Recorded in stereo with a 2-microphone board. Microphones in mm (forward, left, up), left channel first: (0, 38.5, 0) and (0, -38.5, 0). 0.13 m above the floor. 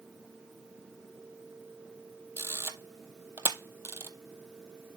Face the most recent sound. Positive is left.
turn(degrees=-30)  # may be behind; listen again after turning